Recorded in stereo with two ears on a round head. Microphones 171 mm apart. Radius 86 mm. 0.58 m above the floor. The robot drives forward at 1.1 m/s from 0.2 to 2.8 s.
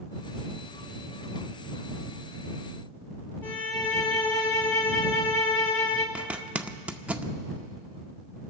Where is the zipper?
5° right (ahead or behind), 0.5 m.